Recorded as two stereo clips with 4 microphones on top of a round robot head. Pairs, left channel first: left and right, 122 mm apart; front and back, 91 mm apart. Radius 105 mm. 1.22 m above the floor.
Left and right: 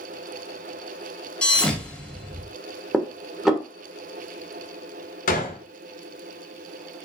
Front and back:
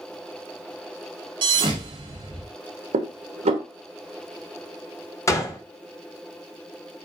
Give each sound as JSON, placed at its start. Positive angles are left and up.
{"t": 1.4, "sound": "a thud", "azimuth_deg": 170, "distance_m": 0.7}
{"t": 2.9, "sound": "dishes clattering", "azimuth_deg": -175, "distance_m": 1.0}
{"t": 5.3, "sound": "a gunshot", "azimuth_deg": 60, "distance_m": 1.2}